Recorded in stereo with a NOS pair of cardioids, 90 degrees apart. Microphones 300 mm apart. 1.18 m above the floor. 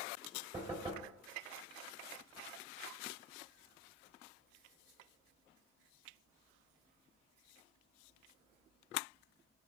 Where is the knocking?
20° right, 3 m.